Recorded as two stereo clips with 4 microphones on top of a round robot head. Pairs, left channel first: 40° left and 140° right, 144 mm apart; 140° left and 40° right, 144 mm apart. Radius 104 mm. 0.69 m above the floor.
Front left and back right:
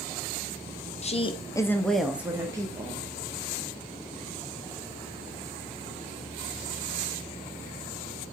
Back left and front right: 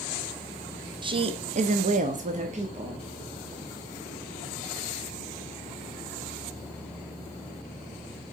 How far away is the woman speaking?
About 0.9 m.